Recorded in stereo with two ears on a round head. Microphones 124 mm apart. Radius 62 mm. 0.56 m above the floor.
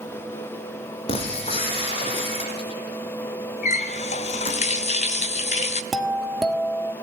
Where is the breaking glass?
45° left (ahead or behind), 5 m.